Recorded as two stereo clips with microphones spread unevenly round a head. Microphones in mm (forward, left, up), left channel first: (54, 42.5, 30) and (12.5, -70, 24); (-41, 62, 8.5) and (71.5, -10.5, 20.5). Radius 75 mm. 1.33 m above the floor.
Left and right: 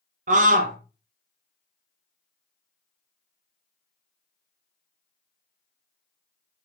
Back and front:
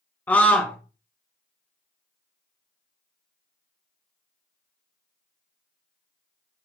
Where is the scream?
135° right, 1.7 m.